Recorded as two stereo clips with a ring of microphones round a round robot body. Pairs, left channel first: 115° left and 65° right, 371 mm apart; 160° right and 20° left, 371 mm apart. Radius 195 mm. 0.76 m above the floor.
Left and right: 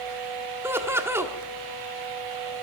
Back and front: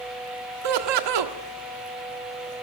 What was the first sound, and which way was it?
Laughter, 15° left.